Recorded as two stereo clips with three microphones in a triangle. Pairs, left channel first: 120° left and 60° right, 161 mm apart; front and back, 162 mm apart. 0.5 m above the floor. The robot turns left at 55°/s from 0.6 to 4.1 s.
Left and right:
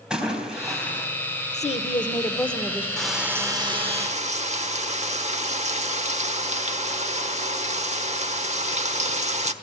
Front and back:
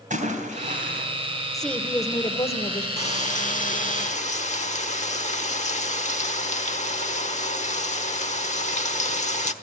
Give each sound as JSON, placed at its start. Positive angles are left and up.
{"t": 0.1, "sound": "a splash", "azimuth_deg": -145, "distance_m": 3.5}
{"t": 1.5, "sound": "a woman speaking", "azimuth_deg": 90, "distance_m": 1.1}
{"t": 3.0, "sound": "frying", "azimuth_deg": 35, "distance_m": 1.2}